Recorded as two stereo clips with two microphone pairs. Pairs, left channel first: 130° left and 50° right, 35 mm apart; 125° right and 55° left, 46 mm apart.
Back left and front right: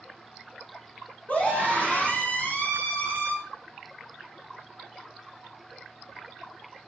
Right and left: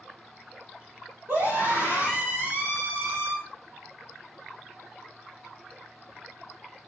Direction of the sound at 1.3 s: 85° left.